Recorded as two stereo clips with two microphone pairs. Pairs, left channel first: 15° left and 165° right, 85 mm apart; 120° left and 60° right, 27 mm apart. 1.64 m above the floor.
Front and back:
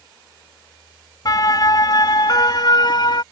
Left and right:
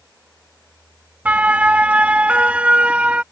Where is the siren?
25° right; by 3.2 s 15° right.